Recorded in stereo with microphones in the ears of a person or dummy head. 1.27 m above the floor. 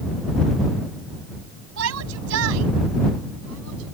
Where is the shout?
80° right; by 3.9 s 75° right (ahead or behind).